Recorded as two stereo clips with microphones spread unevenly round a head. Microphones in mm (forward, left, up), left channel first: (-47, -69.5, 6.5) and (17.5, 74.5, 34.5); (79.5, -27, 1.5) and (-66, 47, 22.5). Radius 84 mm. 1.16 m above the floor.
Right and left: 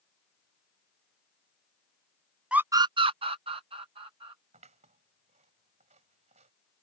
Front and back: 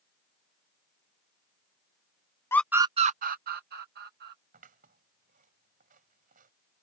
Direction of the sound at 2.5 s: 35° right.